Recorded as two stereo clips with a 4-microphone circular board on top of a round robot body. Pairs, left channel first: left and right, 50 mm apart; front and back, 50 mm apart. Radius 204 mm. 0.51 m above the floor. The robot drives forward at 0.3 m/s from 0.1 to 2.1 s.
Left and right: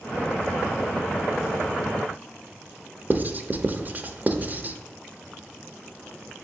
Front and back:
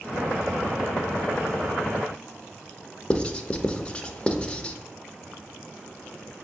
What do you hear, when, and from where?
3.1 s writing: 60° right, 0.6 m